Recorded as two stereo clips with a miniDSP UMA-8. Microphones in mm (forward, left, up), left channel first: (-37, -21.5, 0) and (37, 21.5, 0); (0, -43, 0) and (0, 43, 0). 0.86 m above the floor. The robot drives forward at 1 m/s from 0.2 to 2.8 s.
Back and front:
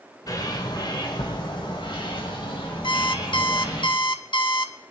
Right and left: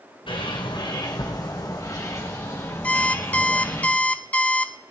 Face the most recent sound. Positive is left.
turn(degrees=-160)